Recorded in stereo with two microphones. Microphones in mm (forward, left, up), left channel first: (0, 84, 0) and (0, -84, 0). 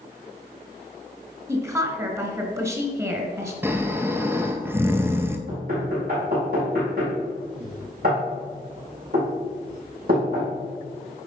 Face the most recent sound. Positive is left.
turn(degrees=-60)  # may be behind; listen again after turning